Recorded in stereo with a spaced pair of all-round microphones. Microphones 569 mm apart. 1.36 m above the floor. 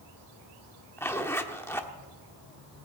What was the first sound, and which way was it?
A zipper, 5° left (ahead or behind).